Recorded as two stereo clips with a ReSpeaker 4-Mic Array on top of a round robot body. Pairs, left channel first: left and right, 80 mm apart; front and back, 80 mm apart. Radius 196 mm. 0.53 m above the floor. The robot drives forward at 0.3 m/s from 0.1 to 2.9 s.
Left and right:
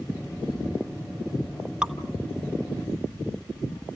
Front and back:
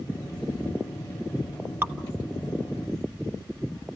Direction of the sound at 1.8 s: 155° right.